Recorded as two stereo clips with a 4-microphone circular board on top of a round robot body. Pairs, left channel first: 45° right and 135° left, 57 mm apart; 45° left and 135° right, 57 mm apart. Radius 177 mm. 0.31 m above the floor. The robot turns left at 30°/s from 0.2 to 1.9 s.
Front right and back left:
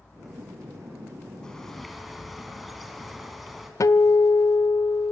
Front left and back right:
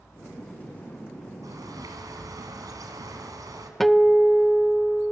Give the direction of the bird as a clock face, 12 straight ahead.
4 o'clock.